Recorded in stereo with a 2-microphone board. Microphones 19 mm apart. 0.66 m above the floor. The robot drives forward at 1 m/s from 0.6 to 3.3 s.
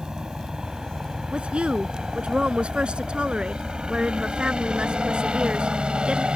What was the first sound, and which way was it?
A helicopter, 45° right (ahead or behind).